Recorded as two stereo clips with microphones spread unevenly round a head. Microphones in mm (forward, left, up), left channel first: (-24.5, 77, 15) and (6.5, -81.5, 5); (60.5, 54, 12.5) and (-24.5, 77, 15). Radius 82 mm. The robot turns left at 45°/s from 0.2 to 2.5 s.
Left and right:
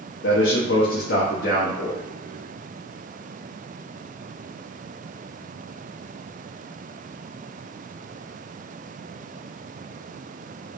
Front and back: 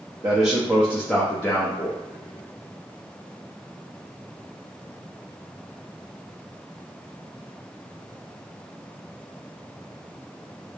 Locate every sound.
0.2 s a man speaking: 115° left, 0.8 m; by 2.0 s 35° left, 0.8 m